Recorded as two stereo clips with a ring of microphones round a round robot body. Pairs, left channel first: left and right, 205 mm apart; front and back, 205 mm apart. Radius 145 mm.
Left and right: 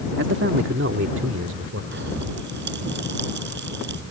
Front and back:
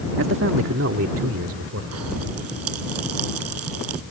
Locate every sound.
0.2 s a man speaking: 140° right
1.9 s a pop: 145° right